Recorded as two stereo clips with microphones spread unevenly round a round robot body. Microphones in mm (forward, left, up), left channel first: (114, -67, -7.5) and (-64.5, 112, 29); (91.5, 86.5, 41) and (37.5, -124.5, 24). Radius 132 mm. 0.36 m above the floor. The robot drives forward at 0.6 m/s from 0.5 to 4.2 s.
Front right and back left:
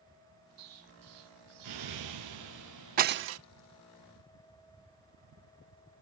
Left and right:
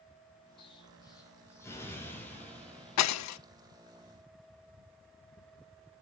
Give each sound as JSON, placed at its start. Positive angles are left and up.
{"t": 0.6, "sound": "an explosion", "azimuth_deg": 145, "distance_m": 1.8}
{"t": 3.0, "sound": "breaking glass", "azimuth_deg": 75, "distance_m": 0.6}